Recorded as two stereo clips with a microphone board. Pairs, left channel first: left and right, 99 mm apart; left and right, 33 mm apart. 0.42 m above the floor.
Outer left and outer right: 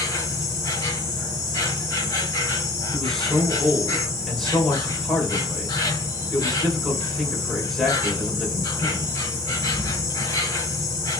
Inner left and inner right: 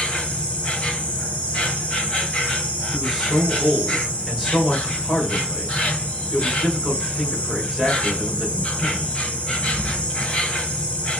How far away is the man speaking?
About 1.9 m.